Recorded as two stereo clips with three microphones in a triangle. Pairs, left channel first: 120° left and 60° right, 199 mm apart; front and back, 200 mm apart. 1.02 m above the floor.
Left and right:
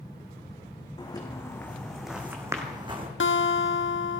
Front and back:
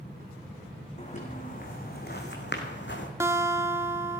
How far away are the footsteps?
About 3 m.